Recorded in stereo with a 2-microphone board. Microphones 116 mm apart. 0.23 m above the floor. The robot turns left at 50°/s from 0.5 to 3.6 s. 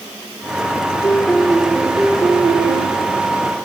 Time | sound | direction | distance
1.0 | a piano | 30° left | 2 m